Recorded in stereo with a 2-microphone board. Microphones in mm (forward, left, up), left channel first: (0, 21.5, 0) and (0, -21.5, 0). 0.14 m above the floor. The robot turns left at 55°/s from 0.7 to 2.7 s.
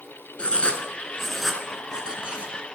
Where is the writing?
25° left (ahead or behind), 1.0 m; by 2.6 s 40° right (ahead or behind), 1.0 m.